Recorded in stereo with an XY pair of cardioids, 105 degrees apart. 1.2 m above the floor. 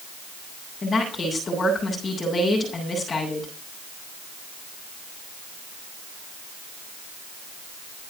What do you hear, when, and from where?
0.8 s a woman speaking: 35° left, 8 m